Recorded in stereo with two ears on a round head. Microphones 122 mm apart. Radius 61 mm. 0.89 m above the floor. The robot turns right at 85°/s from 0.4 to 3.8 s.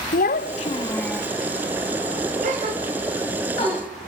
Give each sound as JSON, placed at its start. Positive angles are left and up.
{"t": 0.1, "sound": "a child speaking", "azimuth_deg": 115, "distance_m": 0.5}
{"t": 2.4, "sound": "a gasp", "side_deg": -65, "distance_m": 3.5}